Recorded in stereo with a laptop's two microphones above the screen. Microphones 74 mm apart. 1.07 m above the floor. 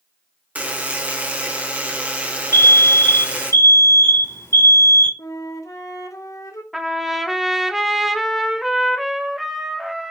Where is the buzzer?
20° right (ahead or behind), 1.3 m.